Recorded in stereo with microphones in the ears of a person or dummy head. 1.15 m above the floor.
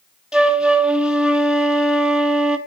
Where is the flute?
5° right (ahead or behind), 1.2 m.